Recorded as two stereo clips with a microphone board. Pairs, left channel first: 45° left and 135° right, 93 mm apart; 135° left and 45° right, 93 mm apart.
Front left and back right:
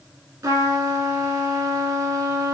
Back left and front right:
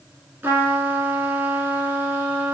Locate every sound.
0.4 s a trumpet: 105° right, 0.6 m